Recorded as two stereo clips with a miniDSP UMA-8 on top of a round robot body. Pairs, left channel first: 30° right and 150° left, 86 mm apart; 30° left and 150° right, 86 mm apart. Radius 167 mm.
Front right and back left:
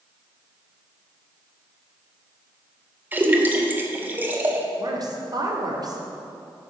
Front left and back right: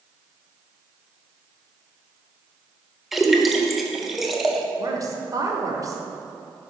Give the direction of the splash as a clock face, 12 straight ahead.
8 o'clock.